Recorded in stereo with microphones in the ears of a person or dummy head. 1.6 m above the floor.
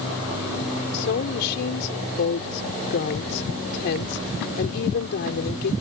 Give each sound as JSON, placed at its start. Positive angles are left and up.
{"t": 0.9, "sound": "a woman speaking", "side_deg": 60}